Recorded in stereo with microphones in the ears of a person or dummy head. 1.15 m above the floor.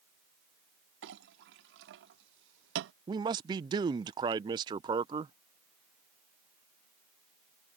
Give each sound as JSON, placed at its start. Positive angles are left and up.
{"t": 1.0, "sound": "a clink", "side_deg": -70}
{"t": 3.1, "sound": "a man speaking", "side_deg": -25}